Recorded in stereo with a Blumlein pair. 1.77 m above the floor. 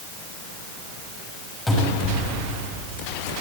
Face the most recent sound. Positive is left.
turn(degrees=10)